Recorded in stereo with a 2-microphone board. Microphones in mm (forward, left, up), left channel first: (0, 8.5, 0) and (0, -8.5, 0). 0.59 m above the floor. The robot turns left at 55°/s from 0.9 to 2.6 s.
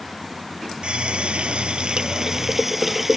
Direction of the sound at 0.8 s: 75° right.